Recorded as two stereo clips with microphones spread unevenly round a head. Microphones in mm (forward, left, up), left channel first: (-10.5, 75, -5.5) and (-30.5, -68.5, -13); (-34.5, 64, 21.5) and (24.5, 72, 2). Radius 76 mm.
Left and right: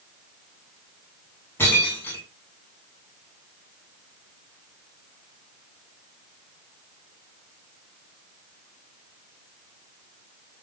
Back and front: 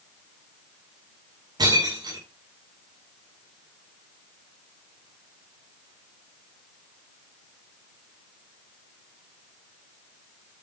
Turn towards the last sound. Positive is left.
turn(degrees=5)